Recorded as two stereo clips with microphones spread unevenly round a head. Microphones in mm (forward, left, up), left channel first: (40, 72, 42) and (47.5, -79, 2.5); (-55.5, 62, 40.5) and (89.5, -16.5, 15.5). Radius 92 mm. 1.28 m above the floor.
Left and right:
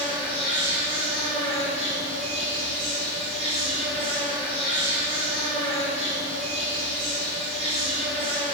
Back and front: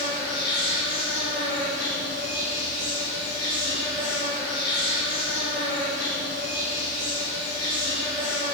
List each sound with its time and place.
0.0 s an insect: 145° right, 4.5 m